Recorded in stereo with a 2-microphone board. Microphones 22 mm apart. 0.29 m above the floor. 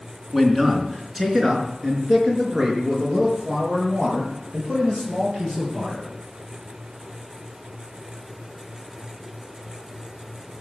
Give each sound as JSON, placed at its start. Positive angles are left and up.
{"t": 0.3, "sound": "a man speaking", "side_deg": -10, "distance_m": 3.5}